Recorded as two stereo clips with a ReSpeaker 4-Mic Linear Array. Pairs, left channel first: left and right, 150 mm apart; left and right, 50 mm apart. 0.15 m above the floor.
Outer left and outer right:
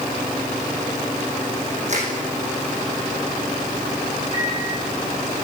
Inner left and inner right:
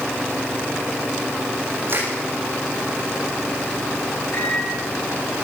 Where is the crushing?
50° right (ahead or behind), 8.5 m.